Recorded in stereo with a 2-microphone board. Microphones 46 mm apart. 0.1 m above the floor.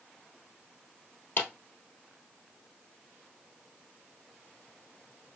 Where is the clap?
50° left (ahead or behind), 1.6 m.